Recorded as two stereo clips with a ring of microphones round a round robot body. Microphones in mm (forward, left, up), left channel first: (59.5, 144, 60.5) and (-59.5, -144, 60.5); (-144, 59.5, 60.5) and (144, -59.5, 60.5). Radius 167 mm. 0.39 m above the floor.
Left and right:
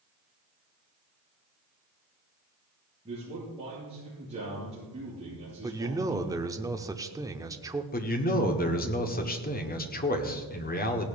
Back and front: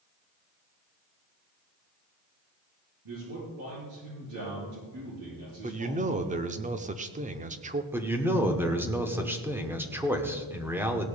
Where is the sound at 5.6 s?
45° right, 0.8 m.